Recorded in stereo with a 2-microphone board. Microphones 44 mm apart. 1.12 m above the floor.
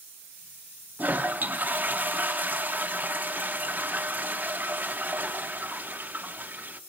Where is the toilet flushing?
40° right (ahead or behind), 0.8 m.